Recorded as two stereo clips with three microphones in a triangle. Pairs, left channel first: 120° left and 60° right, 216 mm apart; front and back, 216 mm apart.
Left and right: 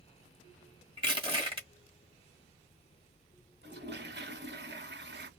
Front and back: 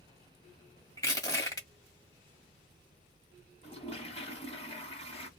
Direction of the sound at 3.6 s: 55° right.